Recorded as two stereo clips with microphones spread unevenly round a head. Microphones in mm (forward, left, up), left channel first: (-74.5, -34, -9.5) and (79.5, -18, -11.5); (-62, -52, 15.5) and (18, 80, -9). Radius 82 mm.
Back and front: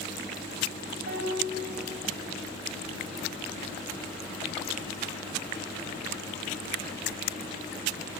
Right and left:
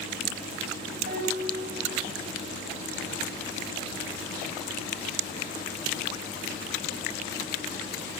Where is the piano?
15° left, 3 m.